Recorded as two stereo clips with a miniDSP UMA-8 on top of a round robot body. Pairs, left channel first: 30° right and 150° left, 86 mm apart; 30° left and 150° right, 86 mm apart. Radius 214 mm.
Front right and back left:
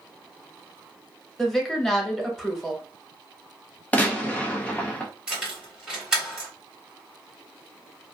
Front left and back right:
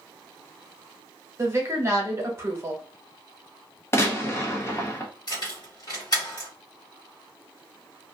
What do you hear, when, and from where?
1.4 s a woman speaking: 115° right, 1.2 m
3.9 s a gunshot: 25° left, 1.0 m
5.3 s keys jangling: 70° left, 1.7 m